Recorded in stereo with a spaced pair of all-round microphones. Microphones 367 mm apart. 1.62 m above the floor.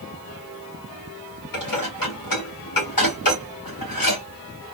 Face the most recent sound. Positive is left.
turn(degrees=65)  # may be behind; listen again after turning